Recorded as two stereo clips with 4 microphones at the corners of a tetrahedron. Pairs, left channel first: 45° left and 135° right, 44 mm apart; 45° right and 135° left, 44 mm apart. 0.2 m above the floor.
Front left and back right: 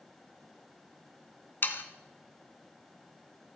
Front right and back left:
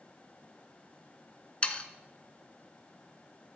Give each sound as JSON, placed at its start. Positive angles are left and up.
{"t": 1.6, "sound": "sawing", "azimuth_deg": 15, "distance_m": 0.8}